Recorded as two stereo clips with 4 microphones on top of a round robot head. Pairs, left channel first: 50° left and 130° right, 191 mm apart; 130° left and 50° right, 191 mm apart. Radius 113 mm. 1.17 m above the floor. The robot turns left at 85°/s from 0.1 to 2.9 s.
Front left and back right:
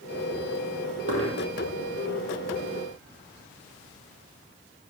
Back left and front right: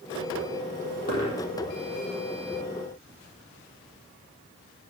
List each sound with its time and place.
1.1 s a dropped coin: straight behind, 4.5 m; by 1.4 s 150° left, 4.5 m